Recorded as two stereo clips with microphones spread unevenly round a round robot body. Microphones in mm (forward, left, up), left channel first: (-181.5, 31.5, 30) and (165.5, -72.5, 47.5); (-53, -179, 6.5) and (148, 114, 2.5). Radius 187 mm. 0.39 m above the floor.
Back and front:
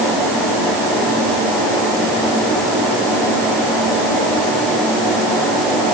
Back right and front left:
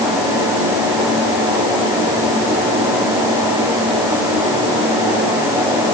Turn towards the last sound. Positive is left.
No sound to turn to.